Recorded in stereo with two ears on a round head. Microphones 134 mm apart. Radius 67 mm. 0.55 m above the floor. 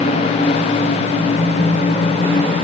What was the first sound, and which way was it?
Only background noise.